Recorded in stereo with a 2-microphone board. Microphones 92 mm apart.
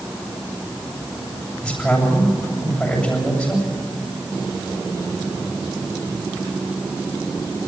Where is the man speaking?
10° left (ahead or behind), 8 m.